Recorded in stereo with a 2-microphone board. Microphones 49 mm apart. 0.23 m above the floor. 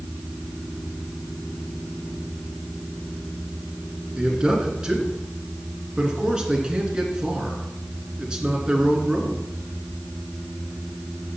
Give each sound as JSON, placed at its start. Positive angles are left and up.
{"t": 4.2, "sound": "a man speaking", "side_deg": -15, "distance_m": 2.5}